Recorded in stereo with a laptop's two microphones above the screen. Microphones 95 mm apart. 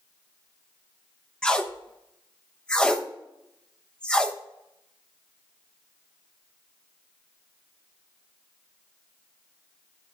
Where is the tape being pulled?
10° left (ahead or behind), 0.7 m.